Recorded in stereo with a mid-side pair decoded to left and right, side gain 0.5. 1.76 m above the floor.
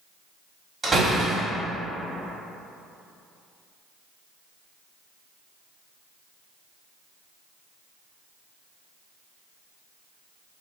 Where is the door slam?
25° right, 1.9 m.